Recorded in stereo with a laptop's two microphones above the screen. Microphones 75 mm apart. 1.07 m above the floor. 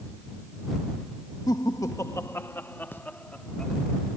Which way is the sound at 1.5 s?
60° left (ahead or behind).